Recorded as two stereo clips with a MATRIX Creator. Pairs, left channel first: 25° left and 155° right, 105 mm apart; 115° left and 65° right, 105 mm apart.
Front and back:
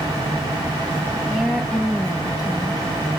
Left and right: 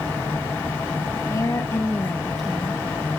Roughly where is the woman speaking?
Behind left.